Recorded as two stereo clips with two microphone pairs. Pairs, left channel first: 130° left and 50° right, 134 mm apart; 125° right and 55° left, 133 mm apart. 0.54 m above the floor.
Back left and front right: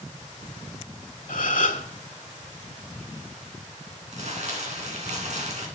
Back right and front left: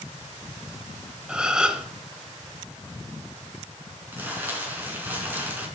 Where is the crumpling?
20° right, 3.5 m.